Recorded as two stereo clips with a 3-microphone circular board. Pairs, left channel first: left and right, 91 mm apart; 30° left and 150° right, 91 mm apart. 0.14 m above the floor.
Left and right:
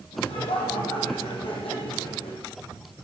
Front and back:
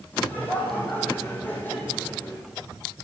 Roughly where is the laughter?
Left.